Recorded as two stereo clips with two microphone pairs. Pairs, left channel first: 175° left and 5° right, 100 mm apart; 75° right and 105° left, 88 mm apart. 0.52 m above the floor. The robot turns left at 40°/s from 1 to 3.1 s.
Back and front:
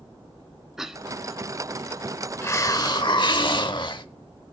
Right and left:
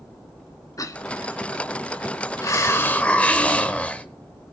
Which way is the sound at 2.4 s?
125° right.